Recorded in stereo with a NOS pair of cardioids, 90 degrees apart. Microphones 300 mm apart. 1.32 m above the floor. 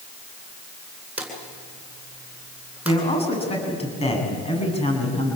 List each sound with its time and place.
1.2 s a drawer: 5° right, 8.5 m
2.9 s a man speaking: 20° left, 9 m